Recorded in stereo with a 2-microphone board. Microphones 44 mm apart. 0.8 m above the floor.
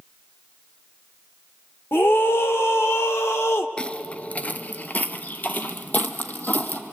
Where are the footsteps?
20° left (ahead or behind), 0.8 m; by 6.8 s 40° left (ahead or behind), 2 m.